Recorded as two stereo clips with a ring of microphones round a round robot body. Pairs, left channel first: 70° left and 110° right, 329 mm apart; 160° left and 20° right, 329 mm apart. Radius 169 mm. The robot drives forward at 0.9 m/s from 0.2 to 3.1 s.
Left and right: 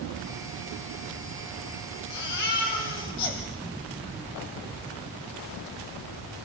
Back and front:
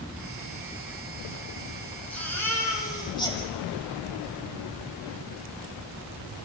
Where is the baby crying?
70° left, 6.5 m; by 3.4 s 80° left, 6 m.